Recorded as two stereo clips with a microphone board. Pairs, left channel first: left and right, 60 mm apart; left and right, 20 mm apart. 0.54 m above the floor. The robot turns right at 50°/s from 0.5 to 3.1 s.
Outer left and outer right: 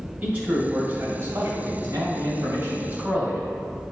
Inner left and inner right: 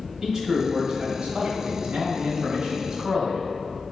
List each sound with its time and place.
0.2 s a man speaking: 150° right, 2.5 m; by 3.5 s 20° right, 2.5 m